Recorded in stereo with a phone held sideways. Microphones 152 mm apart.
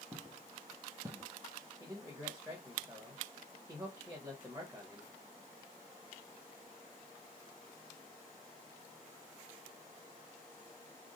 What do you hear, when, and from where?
0.1 s footsteps: 15° right (ahead or behind), 1.5 m; by 1.3 s 25° right (ahead or behind), 1.1 m
1.8 s a man speaking: 20° right (ahead or behind), 1.5 m